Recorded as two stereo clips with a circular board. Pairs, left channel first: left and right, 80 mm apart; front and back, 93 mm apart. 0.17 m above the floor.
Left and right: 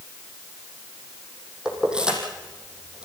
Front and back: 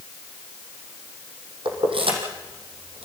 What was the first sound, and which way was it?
Keys jangling, 170° right.